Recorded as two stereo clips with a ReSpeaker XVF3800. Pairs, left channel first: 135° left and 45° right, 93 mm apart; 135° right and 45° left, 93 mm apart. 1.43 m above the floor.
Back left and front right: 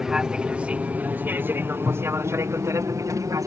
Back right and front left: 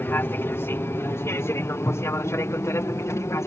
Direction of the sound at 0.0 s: 120° right.